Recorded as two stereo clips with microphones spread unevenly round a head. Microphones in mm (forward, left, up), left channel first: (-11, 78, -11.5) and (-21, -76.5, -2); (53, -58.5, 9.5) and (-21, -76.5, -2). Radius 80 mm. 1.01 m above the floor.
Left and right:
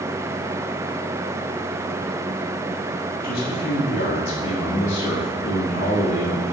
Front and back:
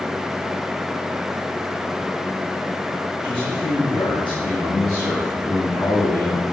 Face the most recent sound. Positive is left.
turn(degrees=110)